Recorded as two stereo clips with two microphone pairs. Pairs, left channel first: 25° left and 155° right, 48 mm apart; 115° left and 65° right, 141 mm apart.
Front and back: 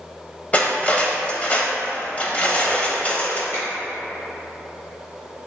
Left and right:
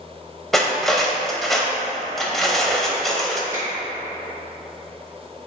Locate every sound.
0.5 s cutlery clinking: 20° left, 0.6 m
3.5 s a finger snap: straight ahead, 1.6 m